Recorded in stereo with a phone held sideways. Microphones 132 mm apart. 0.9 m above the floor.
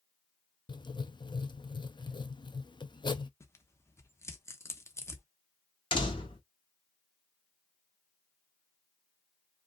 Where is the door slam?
40° left (ahead or behind), 1.5 m.